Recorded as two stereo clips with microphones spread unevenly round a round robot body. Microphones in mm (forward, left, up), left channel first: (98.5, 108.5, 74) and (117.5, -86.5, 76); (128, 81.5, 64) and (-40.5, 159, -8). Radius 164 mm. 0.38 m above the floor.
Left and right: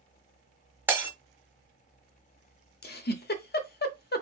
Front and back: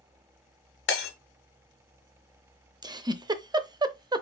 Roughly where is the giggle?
Behind left.